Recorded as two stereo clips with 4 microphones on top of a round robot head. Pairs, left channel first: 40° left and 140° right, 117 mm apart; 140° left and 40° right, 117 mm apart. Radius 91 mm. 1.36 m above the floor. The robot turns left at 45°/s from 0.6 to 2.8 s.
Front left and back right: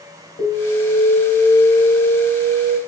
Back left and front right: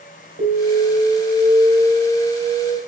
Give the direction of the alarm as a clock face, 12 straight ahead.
12 o'clock.